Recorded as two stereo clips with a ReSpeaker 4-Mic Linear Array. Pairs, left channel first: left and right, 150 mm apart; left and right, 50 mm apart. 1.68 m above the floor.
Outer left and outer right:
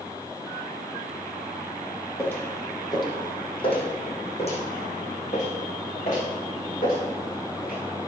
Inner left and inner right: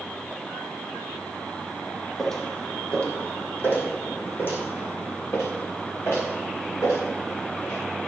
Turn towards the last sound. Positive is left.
turn(degrees=60)  # may be behind; listen again after turning